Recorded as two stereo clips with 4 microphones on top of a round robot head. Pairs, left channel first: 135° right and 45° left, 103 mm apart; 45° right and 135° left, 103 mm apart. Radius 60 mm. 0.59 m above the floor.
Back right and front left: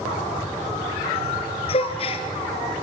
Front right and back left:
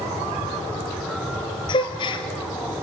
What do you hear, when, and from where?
1.7 s a gasp: 95° right, 2 m